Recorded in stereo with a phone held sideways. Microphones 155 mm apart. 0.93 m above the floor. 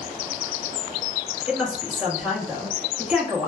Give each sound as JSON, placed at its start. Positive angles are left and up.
{"t": 1.5, "sound": "a woman speaking", "side_deg": -5, "distance_m": 1.1}